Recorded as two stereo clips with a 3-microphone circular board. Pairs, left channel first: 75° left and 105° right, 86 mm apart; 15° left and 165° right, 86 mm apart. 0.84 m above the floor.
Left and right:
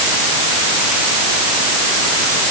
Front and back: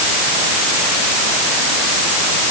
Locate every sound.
Only background noise.